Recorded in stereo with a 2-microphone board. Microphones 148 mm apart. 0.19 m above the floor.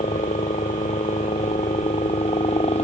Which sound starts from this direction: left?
A helicopter, at 0.0 s.